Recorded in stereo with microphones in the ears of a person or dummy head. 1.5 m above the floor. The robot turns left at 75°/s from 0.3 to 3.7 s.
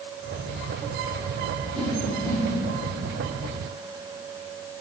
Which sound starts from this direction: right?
A whoosh, at 1.7 s.